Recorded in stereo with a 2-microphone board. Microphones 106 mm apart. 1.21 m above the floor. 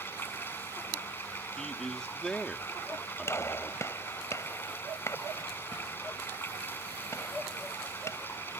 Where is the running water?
20° left (ahead or behind).